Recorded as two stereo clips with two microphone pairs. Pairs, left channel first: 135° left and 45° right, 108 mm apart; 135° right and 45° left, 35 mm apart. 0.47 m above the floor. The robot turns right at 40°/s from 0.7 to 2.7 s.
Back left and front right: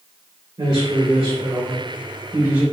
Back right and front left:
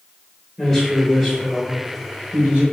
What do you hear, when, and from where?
0.6 s a man speaking: 65° right, 1.4 m; by 2.6 s 10° left, 1.4 m